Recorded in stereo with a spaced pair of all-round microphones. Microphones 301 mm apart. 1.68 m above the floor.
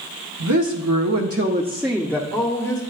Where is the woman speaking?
70° right (ahead or behind), 1.1 m; by 2.8 s 25° left (ahead or behind), 1.4 m.